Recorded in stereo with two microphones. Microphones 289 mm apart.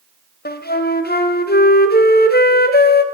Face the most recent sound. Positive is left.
turn(degrees=35)  # may be behind; listen again after turning